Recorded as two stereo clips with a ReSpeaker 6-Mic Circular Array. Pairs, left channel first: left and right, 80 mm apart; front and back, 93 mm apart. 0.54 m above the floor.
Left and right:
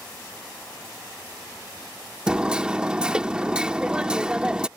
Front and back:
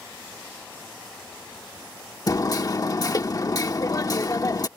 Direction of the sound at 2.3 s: 20° right.